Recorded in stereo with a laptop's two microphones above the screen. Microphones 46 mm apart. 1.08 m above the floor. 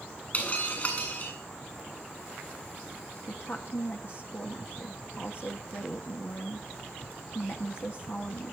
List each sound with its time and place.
0.3 s breaking glass: 35° left (ahead or behind), 8 m
3.3 s a woman speaking: 50° left (ahead or behind), 2.0 m